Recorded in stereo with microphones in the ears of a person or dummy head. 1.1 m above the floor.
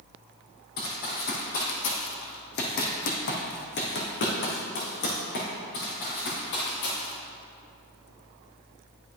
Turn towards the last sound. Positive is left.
turn(degrees=60)  # may be behind; listen again after turning